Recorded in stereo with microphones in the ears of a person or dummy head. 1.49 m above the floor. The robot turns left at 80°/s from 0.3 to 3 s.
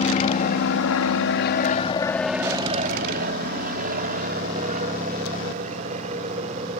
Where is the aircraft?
35° left (ahead or behind); by 6.8 s 35° right (ahead or behind).